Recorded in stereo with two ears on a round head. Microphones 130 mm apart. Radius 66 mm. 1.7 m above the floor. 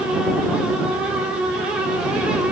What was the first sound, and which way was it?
Only background noise.